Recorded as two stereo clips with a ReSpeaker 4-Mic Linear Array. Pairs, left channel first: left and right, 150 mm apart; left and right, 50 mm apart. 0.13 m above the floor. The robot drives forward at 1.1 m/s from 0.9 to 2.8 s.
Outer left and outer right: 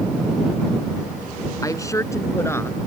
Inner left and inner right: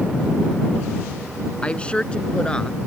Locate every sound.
1.6 s a woman speaking: 25° left (ahead or behind); by 2.8 s 15° left (ahead or behind)